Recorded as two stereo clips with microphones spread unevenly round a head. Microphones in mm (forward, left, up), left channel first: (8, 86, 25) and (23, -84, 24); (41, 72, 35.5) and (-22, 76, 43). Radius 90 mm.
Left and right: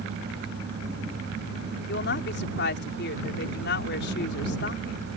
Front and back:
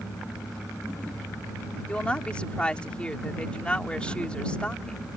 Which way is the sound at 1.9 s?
70° left.